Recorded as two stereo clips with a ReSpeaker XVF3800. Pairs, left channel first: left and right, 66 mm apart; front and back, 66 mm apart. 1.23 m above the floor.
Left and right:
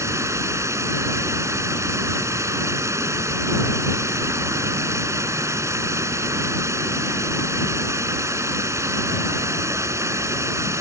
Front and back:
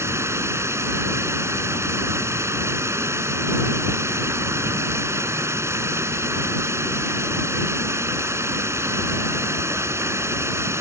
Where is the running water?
130° right.